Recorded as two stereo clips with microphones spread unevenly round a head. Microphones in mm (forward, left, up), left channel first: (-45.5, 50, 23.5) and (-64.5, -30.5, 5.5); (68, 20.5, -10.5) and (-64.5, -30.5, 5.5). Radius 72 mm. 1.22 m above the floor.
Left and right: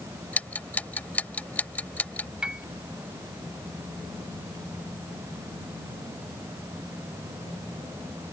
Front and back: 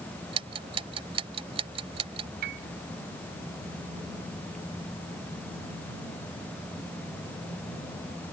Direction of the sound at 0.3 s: 145° left.